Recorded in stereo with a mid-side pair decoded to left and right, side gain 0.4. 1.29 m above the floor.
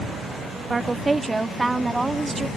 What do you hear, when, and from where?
0.7 s a woman speaking: 25° right; by 2.5 s 15° right